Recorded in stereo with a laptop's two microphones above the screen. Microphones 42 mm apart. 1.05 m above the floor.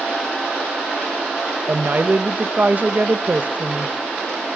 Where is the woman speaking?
40° right (ahead or behind), 0.7 m.